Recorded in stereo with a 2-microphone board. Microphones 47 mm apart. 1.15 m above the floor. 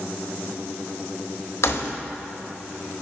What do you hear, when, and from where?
1.6 s keys jangling: 65° left (ahead or behind), 1.3 m